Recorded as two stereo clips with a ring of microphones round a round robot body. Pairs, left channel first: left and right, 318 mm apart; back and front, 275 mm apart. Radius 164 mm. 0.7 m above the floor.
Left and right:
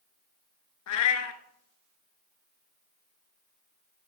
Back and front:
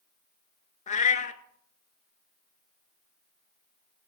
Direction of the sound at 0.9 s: 120° left.